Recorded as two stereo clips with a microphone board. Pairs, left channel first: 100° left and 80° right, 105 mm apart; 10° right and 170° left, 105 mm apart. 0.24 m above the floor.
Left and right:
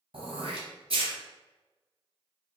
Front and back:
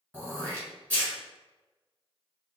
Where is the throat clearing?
85° right, 1.1 m.